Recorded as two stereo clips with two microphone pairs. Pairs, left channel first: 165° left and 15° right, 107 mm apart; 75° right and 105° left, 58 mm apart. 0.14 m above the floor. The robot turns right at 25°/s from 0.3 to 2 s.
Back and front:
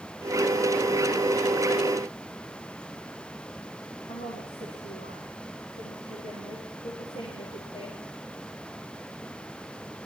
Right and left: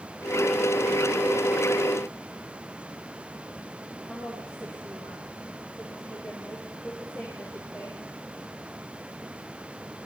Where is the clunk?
I don't hear a clunk.